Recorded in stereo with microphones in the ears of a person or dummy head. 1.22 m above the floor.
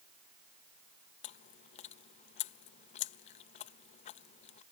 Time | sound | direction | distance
1.2 | chewing | 40° left (ahead or behind) | ?